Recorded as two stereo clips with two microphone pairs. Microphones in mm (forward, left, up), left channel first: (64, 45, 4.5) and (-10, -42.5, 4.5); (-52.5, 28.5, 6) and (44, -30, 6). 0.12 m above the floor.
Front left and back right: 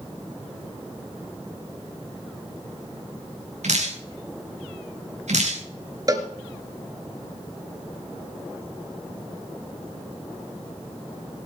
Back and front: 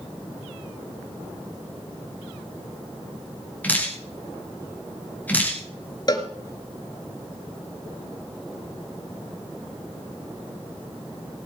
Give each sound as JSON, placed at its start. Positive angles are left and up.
{"t": 3.6, "sound": "dripping", "azimuth_deg": -135, "distance_m": 5.5}
{"t": 6.1, "sound": "a cowbell", "azimuth_deg": -175, "distance_m": 2.0}